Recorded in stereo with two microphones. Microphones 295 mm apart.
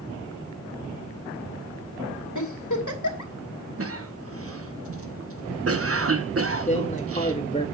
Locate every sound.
2.4 s a giggle: 80° left, 2.5 m
3.8 s a cough: 50° right (ahead or behind), 1.1 m
6.7 s a man speaking: 25° left (ahead or behind), 1.9 m